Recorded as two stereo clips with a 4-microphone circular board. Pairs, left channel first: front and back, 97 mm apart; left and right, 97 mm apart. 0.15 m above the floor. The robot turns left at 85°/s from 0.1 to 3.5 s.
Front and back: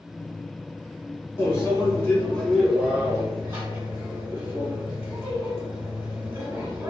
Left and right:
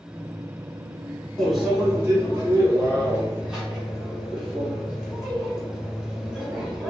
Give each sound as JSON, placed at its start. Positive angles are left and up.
{"t": 1.4, "sound": "a microwave", "azimuth_deg": 15, "distance_m": 1.2}